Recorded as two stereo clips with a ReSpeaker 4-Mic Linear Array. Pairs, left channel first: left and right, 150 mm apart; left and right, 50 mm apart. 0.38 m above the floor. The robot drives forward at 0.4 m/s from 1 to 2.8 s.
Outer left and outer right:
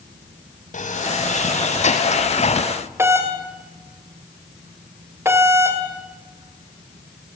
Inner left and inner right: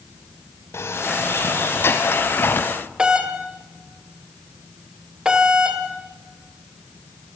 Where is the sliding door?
60° left (ahead or behind), 2.5 m; by 2.7 s 50° left (ahead or behind), 2.5 m.